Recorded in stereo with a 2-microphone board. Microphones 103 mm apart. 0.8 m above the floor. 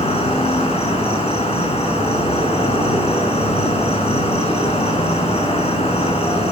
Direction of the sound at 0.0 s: 65° left (ahead or behind).